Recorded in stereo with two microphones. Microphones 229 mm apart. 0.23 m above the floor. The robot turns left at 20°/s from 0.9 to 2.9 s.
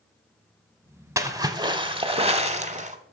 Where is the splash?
20° right, 0.8 m; by 3.0 s 55° right, 0.8 m.